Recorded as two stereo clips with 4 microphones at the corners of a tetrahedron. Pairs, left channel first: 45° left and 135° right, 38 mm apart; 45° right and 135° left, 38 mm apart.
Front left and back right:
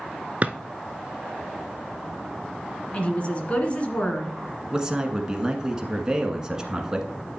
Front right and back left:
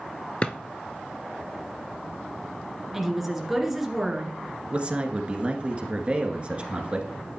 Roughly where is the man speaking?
Behind.